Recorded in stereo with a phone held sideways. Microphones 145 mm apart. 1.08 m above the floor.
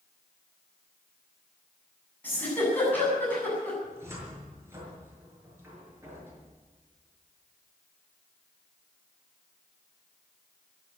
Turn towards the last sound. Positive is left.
turn(degrees=-20)  # may be behind; listen again after turning